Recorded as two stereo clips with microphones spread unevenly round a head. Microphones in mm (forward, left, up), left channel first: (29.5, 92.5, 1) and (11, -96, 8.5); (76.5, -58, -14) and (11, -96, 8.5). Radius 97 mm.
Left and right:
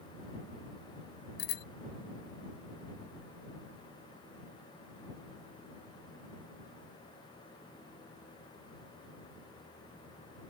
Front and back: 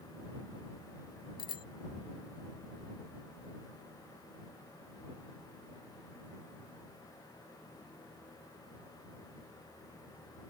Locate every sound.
1.4 s a bicycle bell: 55° left